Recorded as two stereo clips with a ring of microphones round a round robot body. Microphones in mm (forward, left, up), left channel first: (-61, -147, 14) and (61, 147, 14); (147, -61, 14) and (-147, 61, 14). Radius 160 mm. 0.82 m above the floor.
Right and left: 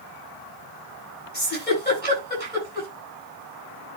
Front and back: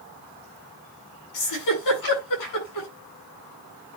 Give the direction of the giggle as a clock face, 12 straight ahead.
2 o'clock.